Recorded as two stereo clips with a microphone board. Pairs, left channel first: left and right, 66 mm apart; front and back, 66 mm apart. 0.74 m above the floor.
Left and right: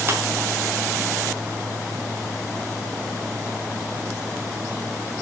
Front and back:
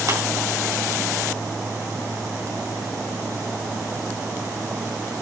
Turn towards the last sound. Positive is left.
turn(degrees=-145)